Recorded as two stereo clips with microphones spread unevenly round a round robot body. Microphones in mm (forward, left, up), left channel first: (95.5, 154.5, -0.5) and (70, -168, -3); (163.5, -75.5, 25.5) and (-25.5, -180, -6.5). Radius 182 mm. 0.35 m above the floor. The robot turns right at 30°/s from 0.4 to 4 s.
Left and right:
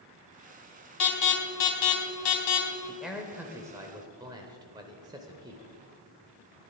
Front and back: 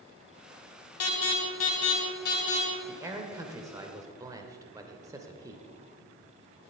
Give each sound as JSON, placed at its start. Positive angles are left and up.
{"t": 1.0, "sound": "an alarm", "azimuth_deg": 50, "distance_m": 1.8}
{"t": 2.9, "sound": "a man speaking", "azimuth_deg": 175, "distance_m": 0.9}